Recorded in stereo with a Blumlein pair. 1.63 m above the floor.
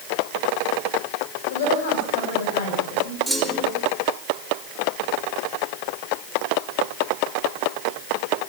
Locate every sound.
1.5 s a woman speaking: 55° left, 8.5 m
3.3 s a clunk: straight ahead, 4.5 m